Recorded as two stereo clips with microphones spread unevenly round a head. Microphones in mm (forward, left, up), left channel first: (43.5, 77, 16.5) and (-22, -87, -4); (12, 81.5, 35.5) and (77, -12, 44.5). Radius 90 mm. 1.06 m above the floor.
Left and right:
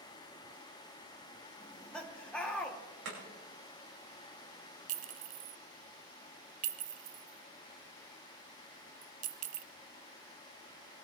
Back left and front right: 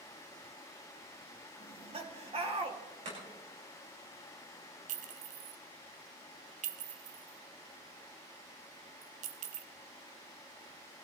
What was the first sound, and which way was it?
Laughter, 20° right.